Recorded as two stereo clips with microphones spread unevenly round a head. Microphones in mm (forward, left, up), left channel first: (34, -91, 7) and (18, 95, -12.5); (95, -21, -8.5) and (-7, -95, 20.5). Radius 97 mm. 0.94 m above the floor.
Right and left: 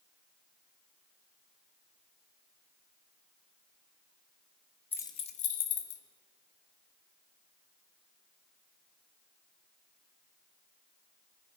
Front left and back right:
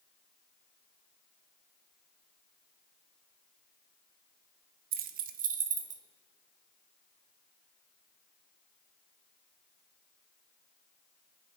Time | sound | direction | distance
4.9 | keys jangling | 165° right | 0.5 m